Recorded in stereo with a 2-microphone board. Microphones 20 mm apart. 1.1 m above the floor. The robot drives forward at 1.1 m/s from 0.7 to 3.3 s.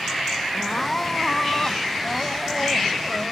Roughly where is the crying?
Centre.